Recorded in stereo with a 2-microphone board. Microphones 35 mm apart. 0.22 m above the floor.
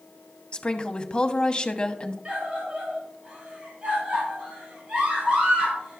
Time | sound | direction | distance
0.5 | a woman speaking | 25° left (ahead or behind) | 1.1 m
2.2 | a scream | 35° right (ahead or behind) | 5.5 m